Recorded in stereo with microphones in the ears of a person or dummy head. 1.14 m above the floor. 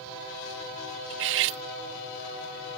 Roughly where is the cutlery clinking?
Right.